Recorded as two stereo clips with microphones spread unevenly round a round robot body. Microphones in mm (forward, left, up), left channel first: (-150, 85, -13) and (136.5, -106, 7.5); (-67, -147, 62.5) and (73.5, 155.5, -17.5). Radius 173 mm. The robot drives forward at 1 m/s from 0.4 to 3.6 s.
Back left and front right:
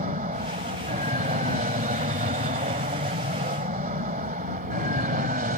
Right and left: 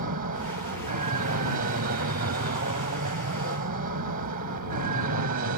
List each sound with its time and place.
0.0 s an aircraft: 30° left; by 5.6 s 25° left